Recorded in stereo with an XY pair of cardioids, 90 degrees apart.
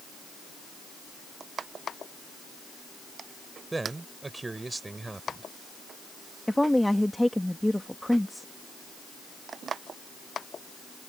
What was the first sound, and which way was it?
A man speaking, 25° right.